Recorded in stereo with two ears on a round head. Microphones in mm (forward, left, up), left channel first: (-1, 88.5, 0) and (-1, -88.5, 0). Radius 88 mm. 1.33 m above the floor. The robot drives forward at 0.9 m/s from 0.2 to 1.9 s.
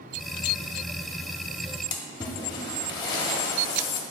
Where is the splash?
20° left (ahead or behind), 1.0 m.